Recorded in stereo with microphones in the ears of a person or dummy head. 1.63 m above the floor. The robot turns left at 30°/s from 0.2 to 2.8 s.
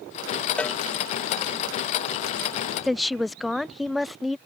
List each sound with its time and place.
0.6 s a cowbell: 5° left (ahead or behind); by 0.8 s 10° left (ahead or behind)
2.8 s a woman speaking: centre (ahead or behind)